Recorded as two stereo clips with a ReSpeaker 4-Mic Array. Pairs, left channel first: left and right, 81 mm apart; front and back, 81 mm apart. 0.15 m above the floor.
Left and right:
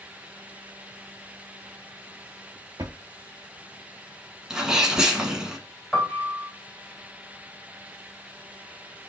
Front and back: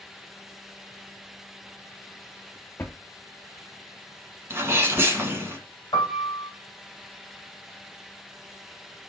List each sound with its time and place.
2.8 s a drawer: 60° right, 0.7 m
4.5 s a sneeze: 165° right, 1.3 m
5.9 s a piano: 15° left, 1.8 m